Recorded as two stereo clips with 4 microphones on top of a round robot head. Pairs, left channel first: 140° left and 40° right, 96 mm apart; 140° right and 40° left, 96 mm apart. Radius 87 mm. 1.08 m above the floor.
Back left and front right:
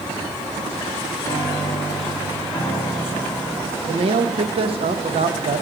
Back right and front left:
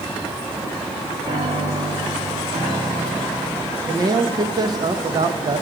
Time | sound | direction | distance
1.2 | a piano | 80° left | 3 m
3.9 | a man speaking | 10° right | 0.9 m